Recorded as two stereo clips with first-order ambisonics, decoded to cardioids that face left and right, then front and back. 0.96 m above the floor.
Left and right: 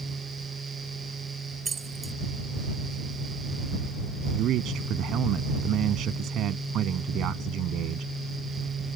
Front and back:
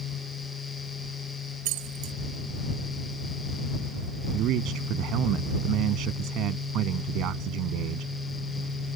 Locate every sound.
1.6 s keys jangling: 165° right
4.3 s a man speaking: 140° right